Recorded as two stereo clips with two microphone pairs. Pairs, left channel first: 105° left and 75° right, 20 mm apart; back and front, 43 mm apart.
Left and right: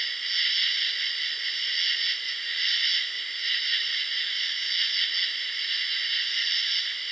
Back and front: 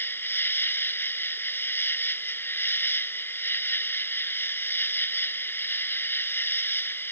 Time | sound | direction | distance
0.0 | an insect | straight behind | ?